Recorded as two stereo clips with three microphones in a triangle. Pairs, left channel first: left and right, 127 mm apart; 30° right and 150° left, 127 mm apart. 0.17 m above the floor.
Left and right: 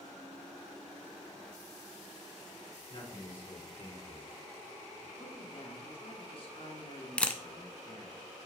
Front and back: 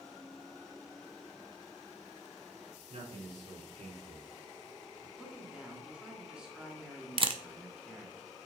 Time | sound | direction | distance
2.9 | a man speaking | 135° left | 3.5 m
5.2 | a man speaking | 70° left | 2.5 m
7.2 | a camera shutter | 165° left | 0.6 m